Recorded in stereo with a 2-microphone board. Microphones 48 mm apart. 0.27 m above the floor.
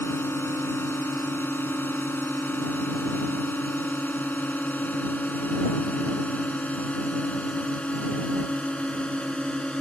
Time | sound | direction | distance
0.0 | a drone | 55° left (ahead or behind) | ?